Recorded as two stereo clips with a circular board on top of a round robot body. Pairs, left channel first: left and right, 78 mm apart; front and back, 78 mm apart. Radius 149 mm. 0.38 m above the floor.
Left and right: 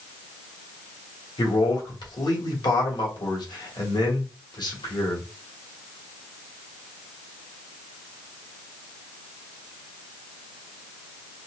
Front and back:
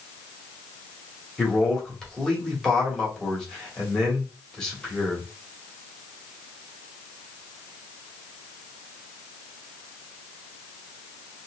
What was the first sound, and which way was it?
A man speaking, 80° left.